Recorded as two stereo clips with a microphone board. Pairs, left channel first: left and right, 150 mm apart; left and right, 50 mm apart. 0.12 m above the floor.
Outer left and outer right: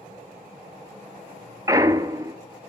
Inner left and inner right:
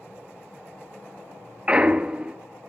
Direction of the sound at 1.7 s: 25° right (ahead or behind).